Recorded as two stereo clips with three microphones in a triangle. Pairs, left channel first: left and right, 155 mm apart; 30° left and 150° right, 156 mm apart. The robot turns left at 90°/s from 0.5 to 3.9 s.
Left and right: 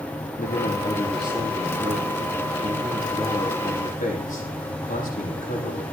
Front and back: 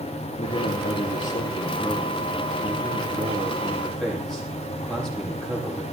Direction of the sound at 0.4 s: 65° left.